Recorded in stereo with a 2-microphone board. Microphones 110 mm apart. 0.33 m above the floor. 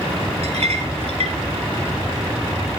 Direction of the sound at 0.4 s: 65° right (ahead or behind).